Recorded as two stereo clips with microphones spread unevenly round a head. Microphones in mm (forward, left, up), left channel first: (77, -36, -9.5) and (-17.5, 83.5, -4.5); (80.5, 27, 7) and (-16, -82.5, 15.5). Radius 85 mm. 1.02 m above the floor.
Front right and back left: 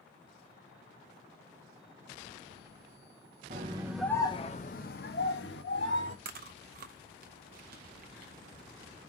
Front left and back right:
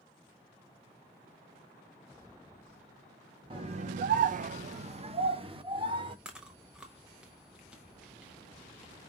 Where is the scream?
170° left, 0.5 m; by 6.2 s 75° right, 1.7 m.